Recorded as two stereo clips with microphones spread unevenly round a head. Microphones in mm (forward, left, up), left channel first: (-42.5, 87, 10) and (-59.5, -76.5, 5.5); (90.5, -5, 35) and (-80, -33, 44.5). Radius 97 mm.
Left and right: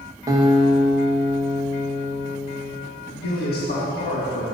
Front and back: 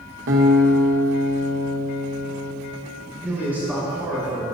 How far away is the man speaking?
About 1.5 m.